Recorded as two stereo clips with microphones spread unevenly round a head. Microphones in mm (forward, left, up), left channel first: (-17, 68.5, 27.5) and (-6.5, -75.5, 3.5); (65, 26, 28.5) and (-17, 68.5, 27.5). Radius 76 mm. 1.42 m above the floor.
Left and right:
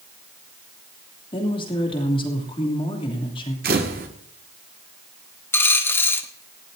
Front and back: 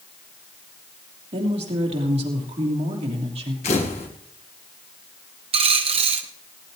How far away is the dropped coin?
About 1.3 m.